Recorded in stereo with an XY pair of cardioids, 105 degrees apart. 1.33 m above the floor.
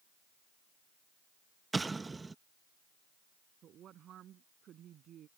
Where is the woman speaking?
65° right.